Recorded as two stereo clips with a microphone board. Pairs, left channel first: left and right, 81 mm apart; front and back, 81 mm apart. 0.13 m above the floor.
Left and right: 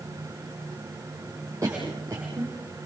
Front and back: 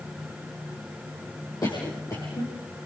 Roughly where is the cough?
Ahead right.